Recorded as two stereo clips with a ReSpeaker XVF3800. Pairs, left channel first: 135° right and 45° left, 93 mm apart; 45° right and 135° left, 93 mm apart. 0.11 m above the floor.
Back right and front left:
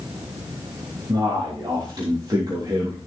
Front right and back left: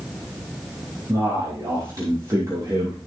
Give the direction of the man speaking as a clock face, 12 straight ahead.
9 o'clock.